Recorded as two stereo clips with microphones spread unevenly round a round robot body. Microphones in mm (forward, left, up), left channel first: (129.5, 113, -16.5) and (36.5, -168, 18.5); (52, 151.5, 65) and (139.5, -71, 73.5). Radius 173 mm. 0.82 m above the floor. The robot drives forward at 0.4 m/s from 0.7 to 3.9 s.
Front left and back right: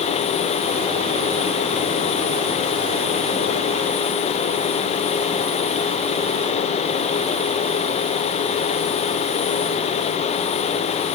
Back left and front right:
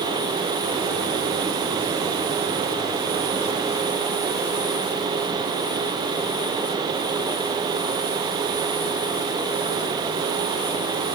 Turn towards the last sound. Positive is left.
No sound to turn to.